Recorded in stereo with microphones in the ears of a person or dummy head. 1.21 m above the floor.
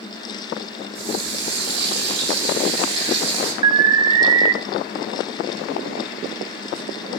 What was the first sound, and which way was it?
A running tap, 75° right (ahead or behind).